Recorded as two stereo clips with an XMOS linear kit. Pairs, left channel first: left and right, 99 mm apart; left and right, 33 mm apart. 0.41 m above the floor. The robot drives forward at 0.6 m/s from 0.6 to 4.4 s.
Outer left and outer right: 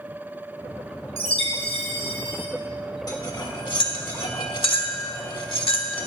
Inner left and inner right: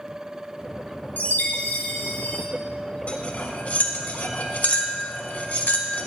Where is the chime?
75° left (ahead or behind), 1.5 m; by 2.5 s 65° left (ahead or behind), 1.6 m.